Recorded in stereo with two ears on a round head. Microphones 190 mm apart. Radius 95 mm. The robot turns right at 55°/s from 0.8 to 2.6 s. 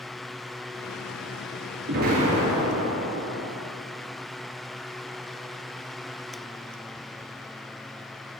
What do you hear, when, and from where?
1.9 s an explosion: 55° right, 4.5 m; by 3.5 s 15° right, 4.5 m